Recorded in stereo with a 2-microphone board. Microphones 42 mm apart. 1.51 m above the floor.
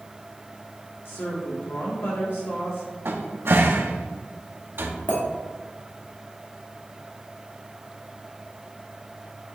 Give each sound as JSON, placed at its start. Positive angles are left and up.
{"t": 1.1, "sound": "a woman speaking", "side_deg": 70, "distance_m": 2.0}
{"t": 3.0, "sound": "a cupboard door", "side_deg": -70, "distance_m": 1.2}
{"t": 5.1, "sound": "a clink", "side_deg": 60, "distance_m": 3.0}